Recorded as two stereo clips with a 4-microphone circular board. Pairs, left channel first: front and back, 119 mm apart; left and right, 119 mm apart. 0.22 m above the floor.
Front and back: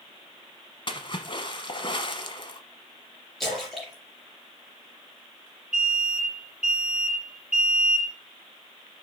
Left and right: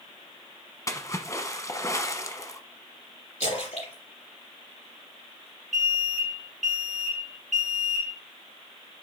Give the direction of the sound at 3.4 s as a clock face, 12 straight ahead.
9 o'clock.